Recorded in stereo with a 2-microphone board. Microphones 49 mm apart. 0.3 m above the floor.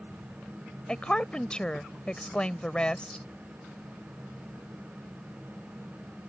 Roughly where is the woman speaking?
Left.